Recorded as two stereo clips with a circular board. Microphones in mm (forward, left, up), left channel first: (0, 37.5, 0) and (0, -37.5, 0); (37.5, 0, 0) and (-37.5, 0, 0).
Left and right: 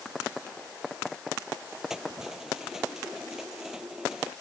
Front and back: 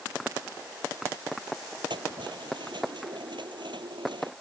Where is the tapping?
No tapping in this recording.